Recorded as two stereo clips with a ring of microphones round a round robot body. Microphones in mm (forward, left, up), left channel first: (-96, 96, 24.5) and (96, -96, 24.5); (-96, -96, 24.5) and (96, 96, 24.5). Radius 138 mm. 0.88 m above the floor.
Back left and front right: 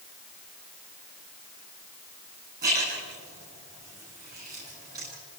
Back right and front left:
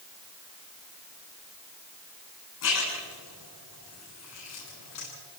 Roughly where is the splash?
Right.